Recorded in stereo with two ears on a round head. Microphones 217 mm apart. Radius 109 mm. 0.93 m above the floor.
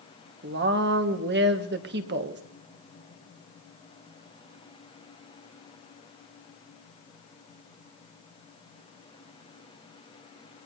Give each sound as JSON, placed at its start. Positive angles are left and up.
{"t": 0.4, "sound": "a woman speaking", "side_deg": -45, "distance_m": 1.3}